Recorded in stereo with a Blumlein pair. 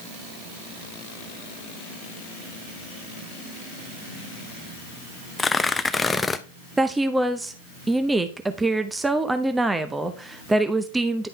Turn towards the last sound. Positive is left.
turn(degrees=-10)